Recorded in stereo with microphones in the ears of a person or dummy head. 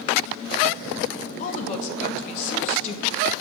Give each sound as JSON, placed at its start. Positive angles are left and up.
{"t": 1.4, "sound": "a woman speaking", "side_deg": 45, "distance_m": 2.0}